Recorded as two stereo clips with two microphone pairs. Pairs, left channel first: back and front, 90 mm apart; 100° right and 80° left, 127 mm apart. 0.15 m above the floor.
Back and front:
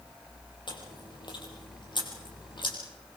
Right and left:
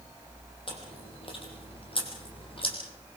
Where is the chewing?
145° right, 5 m.